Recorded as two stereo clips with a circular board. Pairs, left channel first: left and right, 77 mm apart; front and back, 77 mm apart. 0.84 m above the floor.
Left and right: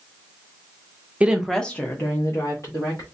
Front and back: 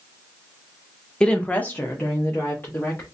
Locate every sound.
1.2 s a woman speaking: 60° right, 0.7 m; by 3.0 s 60° left, 1.6 m